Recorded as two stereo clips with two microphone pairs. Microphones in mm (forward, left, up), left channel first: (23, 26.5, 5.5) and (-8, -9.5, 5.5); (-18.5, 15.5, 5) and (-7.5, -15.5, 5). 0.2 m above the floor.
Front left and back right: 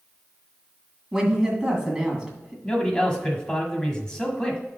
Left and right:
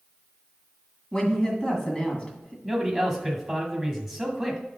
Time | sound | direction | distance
1.1 | a woman speaking | 155° left | 2.0 m
2.6 | a man speaking | 10° left | 1.3 m